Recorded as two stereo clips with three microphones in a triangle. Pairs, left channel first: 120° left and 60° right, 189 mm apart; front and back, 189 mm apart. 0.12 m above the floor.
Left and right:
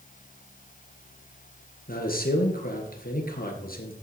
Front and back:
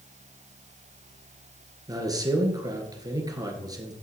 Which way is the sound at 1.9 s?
115° left.